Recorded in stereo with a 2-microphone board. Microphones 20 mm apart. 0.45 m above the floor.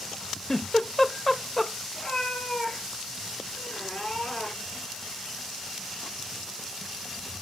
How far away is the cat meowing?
About 3.5 m.